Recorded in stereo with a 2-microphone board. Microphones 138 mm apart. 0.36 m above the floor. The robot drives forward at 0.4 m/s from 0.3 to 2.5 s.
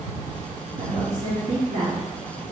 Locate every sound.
0.8 s a woman speaking: 80° right, 4 m